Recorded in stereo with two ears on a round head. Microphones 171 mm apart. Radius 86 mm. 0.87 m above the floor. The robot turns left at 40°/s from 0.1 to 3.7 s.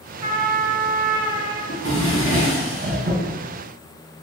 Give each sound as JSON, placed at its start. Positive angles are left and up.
{"t": 0.2, "sound": "a trumpet", "azimuth_deg": -20, "distance_m": 0.6}
{"t": 1.7, "sound": "a drawer", "azimuth_deg": -60, "distance_m": 1.4}